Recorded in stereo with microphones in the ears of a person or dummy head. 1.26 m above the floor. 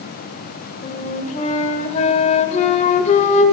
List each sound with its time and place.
0.8 s a flute: 35° left (ahead or behind), 1.6 m